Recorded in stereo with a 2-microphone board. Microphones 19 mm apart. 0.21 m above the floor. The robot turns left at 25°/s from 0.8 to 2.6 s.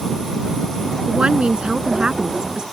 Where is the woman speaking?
95° right; by 2.6 s 130° right.